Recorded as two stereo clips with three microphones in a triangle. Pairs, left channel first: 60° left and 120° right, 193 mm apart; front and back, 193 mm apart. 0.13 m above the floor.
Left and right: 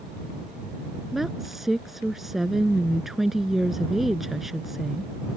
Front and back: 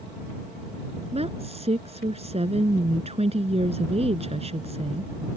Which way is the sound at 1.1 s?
150° left.